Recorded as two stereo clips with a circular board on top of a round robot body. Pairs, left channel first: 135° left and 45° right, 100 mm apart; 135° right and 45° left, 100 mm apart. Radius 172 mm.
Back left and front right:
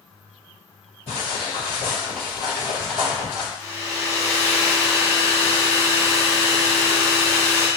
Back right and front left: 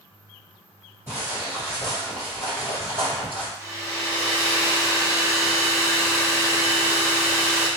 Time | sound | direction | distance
1.1 | footsteps | 115° left | 1.5 m
3.6 | a hair dryer | 55° left | 0.8 m